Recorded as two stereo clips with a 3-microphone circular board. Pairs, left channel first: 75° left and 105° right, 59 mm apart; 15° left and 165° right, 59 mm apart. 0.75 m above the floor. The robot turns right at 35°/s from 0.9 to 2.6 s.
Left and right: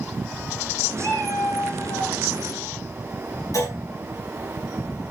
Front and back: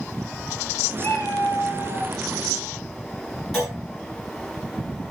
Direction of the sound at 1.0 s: 50° left.